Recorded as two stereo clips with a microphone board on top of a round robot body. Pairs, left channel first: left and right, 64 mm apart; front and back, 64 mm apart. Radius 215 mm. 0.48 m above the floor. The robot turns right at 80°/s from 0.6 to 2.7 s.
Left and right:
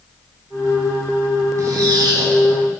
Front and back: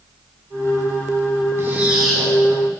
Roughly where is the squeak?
Behind right.